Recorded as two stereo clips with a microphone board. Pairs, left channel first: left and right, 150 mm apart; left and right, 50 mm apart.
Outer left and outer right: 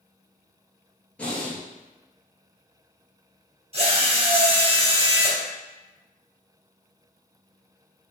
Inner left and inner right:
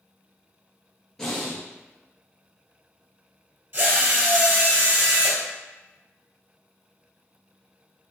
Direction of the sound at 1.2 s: 10° left (ahead or behind).